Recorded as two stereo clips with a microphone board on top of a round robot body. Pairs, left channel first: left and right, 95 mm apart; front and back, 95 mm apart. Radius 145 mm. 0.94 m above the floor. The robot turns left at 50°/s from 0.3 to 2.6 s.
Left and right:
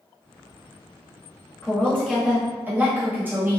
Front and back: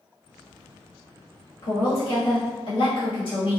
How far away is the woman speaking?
About 1.8 m.